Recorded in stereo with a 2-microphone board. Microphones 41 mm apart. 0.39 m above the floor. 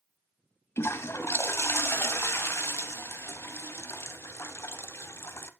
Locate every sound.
0.8 s a toilet flushing: 80° left, 0.7 m